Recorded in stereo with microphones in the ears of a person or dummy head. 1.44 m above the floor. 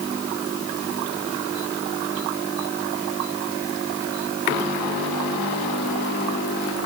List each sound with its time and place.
Only background noise.